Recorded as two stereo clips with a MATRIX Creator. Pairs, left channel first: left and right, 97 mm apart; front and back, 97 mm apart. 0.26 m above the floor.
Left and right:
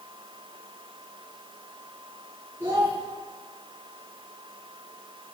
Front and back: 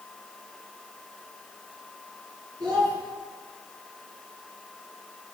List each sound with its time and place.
2.6 s a child speaking: 145° right, 2 m